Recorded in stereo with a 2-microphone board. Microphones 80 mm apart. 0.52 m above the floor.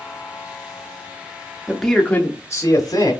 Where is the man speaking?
5° right (ahead or behind), 0.8 m; by 3.1 s 55° left (ahead or behind), 1.2 m.